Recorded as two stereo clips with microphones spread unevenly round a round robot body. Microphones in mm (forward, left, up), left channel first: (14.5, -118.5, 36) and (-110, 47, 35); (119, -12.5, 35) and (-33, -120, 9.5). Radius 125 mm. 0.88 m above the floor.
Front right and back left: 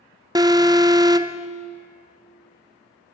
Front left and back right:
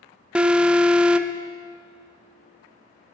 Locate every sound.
0.3 s an alarm: 160° left, 0.8 m